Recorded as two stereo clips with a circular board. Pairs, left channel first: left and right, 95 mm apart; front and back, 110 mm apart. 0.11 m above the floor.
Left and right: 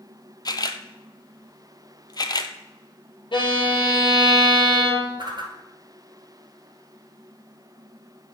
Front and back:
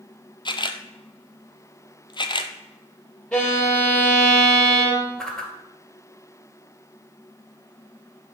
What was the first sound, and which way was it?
A camera shutter, 45° left.